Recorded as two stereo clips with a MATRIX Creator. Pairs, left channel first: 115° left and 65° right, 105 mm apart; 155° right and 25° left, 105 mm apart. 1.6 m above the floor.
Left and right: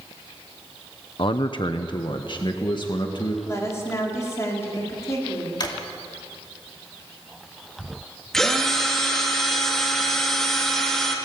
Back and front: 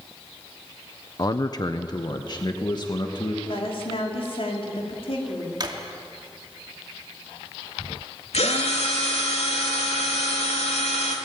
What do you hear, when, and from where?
1.2 s a man speaking: 150° left, 0.8 m; by 3.4 s 155° left, 2 m
3.5 s a woman speaking: 175° left, 4.5 m
5.6 s a drawer: 65° left, 2.5 m
8.3 s a drill: 160° right, 3 m